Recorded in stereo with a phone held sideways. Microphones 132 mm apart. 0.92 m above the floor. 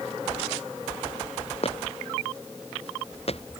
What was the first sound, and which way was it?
Footsteps, 50° left (ahead or behind).